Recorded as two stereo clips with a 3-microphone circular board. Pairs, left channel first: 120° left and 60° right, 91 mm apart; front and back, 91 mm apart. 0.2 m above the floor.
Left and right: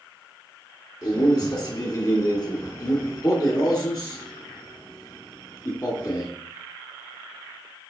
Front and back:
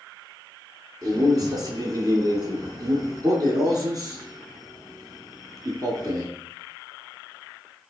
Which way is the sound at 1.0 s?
150° left.